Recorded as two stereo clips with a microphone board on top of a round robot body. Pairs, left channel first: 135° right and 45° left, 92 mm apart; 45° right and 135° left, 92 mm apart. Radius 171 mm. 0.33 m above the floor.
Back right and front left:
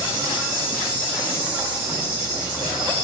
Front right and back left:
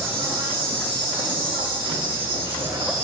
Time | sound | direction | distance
0.0 | an insect | 125° left | 8 m